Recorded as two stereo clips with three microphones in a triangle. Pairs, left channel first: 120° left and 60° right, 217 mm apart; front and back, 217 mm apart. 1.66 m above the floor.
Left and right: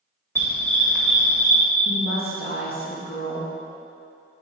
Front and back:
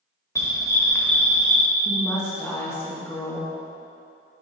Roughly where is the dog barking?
Ahead left.